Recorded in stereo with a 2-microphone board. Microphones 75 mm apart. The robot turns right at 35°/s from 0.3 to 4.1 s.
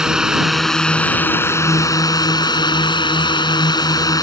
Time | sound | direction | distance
0.0 | a drone | 10° right | ?